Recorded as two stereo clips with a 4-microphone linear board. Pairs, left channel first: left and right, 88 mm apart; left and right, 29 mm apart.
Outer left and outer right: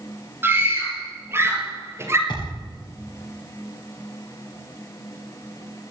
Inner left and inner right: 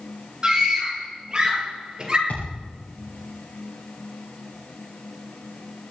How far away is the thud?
About 7 m.